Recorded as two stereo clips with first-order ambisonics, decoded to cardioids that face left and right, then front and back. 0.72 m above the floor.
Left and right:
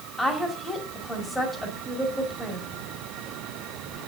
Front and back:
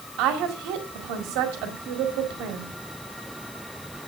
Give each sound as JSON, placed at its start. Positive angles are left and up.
{"t": 0.2, "sound": "a woman speaking", "azimuth_deg": 175, "distance_m": 2.0}